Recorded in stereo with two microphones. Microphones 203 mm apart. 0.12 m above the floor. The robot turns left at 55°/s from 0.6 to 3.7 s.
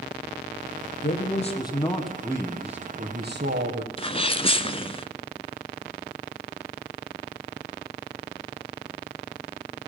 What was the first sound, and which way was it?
A man speaking, 55° left.